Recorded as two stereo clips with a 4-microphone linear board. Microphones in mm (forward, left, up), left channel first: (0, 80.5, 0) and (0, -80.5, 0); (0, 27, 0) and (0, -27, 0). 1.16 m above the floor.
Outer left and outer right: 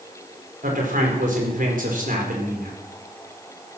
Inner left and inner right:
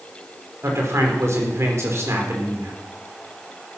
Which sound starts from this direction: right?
A man speaking, at 0.6 s.